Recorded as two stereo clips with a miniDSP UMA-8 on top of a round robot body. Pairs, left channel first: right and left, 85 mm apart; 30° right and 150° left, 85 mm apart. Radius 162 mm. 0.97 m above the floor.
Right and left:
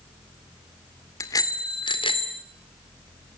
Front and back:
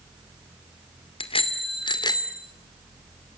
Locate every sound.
1.2 s a bicycle bell: 35° right, 2.5 m; by 2.4 s 80° right, 2.5 m